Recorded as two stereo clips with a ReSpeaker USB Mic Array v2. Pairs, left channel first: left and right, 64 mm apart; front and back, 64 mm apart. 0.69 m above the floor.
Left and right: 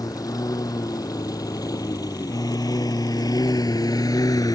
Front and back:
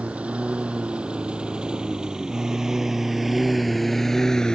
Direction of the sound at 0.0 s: 110° left.